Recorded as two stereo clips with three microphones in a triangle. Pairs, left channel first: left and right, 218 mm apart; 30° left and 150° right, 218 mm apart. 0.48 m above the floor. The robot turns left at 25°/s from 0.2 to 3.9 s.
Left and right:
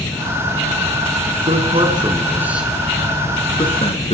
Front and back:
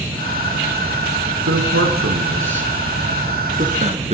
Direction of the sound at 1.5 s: 145° right.